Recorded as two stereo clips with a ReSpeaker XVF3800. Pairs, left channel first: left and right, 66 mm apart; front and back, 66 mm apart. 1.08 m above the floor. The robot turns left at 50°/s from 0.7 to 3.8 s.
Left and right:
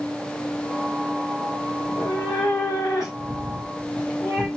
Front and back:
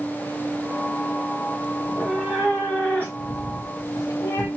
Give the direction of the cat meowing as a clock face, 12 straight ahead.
8 o'clock.